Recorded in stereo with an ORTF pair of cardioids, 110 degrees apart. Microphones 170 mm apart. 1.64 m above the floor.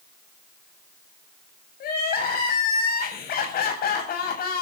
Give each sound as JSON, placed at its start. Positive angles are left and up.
{"t": 1.8, "sound": "crying", "azimuth_deg": 60, "distance_m": 7.5}